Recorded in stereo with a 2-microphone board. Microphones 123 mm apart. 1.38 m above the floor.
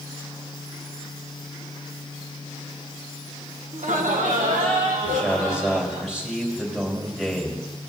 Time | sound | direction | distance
3.7 | laughter | 80° right | 1.2 m
5.0 | a man speaking | 5° right (ahead or behind) | 3.5 m